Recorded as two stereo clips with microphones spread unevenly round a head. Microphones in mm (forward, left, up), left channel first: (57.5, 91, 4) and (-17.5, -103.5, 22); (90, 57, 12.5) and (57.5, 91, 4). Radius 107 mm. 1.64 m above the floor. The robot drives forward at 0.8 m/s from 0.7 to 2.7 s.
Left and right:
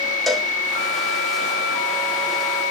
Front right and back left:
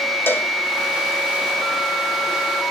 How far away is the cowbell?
About 1.5 m.